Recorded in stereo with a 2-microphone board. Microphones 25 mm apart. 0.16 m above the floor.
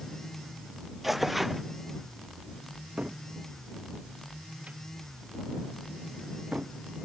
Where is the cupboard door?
60° right (ahead or behind).